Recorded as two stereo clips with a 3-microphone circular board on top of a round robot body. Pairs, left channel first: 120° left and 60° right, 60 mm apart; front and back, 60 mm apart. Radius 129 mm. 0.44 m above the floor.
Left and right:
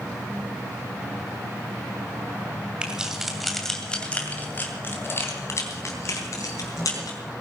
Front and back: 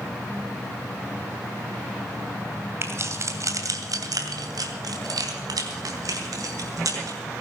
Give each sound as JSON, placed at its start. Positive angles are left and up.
{"t": 2.8, "sound": "keys jangling", "azimuth_deg": -135, "distance_m": 2.5}